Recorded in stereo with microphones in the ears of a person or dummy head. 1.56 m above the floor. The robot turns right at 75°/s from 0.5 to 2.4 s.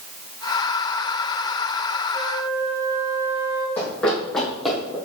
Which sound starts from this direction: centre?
Running footsteps, at 3.8 s.